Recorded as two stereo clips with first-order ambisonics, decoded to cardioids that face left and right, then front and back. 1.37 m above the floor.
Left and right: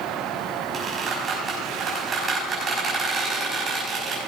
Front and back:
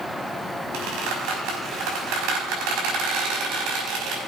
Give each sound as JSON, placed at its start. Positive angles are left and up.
{"t": 0.7, "sound": "a squeak", "azimuth_deg": -160, "distance_m": 5.0}